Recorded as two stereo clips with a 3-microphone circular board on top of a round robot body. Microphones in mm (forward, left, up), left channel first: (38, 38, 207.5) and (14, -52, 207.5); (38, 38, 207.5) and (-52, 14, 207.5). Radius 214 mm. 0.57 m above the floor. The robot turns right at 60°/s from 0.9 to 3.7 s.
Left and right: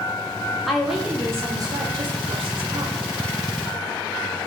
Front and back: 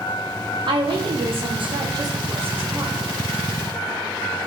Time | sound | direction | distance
0.7 | a woman speaking | 165° left | 2.5 m